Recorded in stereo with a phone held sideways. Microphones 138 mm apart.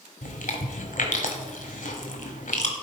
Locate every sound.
0.2 s chewing: 75° left (ahead or behind), 1.4 m